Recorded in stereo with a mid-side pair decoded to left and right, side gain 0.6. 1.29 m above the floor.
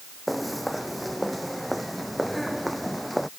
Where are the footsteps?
Straight ahead.